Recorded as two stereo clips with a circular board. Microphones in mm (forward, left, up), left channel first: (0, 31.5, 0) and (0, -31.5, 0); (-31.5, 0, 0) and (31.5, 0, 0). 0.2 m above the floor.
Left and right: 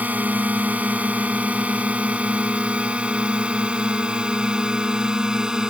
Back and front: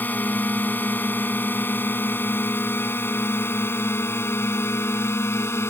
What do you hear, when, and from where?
0.0 s a drone: 140° right; by 5.7 s 165° right